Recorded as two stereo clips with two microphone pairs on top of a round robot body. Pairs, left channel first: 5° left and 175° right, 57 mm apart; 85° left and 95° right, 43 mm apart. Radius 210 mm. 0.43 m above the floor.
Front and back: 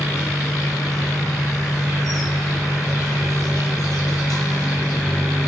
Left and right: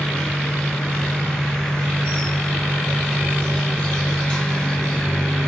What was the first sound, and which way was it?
An insect, 15° left.